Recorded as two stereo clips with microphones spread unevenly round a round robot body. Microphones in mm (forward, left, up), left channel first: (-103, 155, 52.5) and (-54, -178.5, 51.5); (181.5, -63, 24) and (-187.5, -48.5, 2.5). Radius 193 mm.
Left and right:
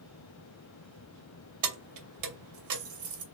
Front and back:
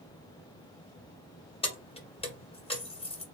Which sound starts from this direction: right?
Keys jangling, at 1.6 s.